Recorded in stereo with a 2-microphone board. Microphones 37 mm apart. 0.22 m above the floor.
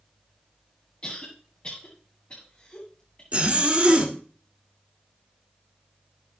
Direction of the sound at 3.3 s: 35° right (ahead or behind).